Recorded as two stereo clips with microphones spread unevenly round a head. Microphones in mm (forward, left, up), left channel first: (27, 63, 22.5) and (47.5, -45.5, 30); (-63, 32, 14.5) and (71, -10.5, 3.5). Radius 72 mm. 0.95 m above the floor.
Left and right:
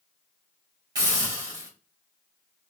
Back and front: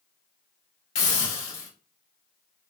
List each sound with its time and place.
0.9 s a hiss: 145° right, 1.9 m